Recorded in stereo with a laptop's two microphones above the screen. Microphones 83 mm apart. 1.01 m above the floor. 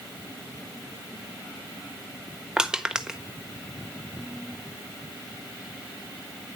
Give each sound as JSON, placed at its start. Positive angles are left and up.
{"t": 2.6, "sound": "crushing", "side_deg": -10, "distance_m": 1.3}